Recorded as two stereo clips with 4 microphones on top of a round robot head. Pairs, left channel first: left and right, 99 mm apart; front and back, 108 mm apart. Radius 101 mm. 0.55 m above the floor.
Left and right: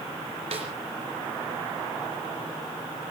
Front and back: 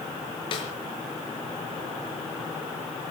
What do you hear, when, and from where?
0.5 s a snare drum: 50° right, 4 m